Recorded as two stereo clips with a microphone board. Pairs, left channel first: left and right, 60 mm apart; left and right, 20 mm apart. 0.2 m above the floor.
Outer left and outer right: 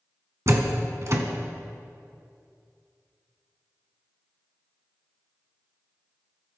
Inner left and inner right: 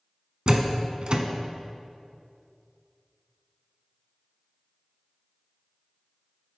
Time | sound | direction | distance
0.5 | a door slam | 50° right (ahead or behind) | 1.1 m